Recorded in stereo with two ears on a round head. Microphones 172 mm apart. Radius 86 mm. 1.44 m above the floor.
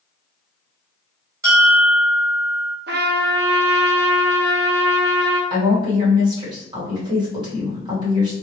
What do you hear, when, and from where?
1.4 s a bell: 20° right (ahead or behind), 2.0 m
2.9 s a trumpet: 60° right (ahead or behind), 0.7 m
5.5 s a woman speaking: 25° right (ahead or behind), 1.7 m